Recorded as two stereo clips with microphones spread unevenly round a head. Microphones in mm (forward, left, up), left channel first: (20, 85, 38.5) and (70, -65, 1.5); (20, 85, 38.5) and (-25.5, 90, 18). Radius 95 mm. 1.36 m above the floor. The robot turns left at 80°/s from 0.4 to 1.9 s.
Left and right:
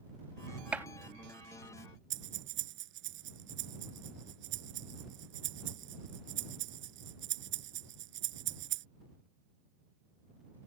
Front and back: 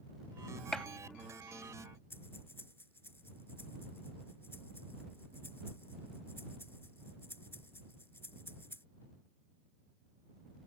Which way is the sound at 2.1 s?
70° right.